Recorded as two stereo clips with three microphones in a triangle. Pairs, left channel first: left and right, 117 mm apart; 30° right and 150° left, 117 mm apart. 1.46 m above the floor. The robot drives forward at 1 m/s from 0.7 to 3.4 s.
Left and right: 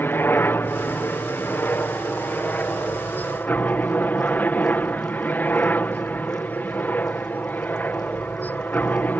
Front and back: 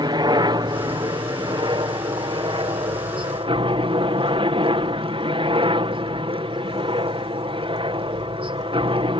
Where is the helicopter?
150° left; by 9.2 s 160° left.